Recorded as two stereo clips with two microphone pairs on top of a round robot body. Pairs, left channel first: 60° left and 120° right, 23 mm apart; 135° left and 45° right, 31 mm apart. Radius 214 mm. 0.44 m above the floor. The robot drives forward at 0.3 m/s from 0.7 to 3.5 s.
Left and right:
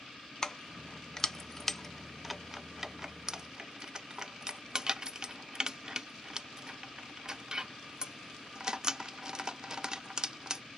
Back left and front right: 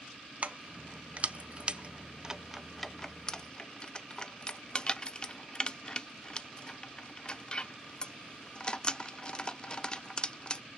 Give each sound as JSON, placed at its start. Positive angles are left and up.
{"t": 0.4, "sound": "keys jangling", "azimuth_deg": -5, "distance_m": 0.8}